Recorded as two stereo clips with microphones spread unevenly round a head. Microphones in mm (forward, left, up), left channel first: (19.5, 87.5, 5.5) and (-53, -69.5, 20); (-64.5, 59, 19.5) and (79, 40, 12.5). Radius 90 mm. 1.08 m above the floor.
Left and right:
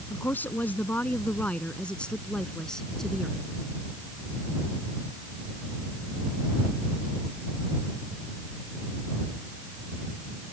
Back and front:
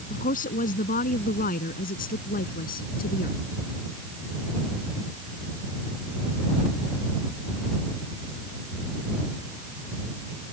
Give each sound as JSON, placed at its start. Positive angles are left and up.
{"t": 0.1, "sound": "a woman speaking", "azimuth_deg": 145}